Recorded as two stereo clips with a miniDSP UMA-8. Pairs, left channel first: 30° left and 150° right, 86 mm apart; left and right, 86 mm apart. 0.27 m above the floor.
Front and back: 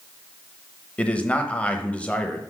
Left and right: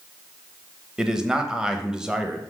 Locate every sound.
1.0 s a man speaking: 20° right, 0.9 m